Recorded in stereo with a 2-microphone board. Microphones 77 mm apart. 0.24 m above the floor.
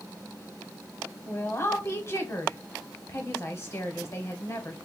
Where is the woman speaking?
35° left (ahead or behind), 1.1 m.